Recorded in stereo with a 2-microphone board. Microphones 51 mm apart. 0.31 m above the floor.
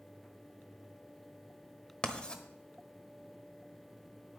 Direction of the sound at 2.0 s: 20° left (ahead or behind).